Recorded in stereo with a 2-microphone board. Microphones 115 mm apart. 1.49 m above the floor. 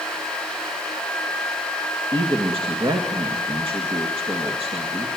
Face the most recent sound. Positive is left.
turn(degrees=-50)  # may be behind; listen again after turning